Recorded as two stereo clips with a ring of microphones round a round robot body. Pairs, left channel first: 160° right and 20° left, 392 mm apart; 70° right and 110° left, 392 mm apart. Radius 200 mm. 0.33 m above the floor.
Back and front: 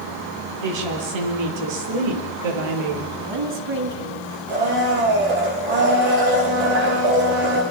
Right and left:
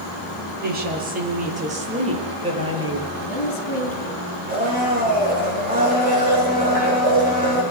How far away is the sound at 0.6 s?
About 8 m.